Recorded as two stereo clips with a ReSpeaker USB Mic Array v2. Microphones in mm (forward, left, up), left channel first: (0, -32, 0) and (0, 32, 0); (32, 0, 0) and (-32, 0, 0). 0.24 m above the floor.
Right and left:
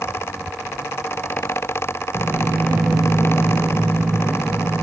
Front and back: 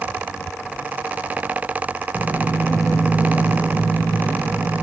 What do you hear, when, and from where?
2.1 s footsteps: 135° left, 0.9 m; by 4.7 s 120° right, 1.1 m